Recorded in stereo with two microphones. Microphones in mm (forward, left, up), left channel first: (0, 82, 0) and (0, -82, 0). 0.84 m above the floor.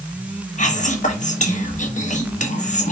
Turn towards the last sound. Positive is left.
turn(degrees=50)  # may be behind; listen again after turning